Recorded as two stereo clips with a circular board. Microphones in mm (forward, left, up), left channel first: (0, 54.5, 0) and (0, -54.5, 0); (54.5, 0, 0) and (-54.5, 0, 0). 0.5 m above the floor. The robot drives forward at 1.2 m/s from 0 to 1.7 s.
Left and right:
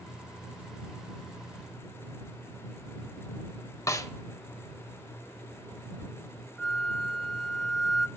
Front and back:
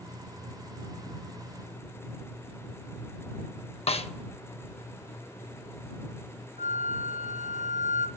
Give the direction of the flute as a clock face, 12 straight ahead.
6 o'clock.